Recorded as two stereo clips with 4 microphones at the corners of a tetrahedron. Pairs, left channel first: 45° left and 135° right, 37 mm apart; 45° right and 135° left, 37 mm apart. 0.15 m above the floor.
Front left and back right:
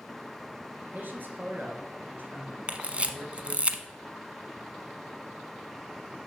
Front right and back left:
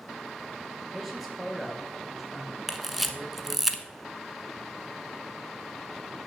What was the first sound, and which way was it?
A man speaking, 140° right.